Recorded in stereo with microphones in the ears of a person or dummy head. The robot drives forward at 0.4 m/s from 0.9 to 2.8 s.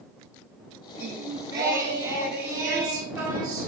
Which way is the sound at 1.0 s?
20° right (ahead or behind).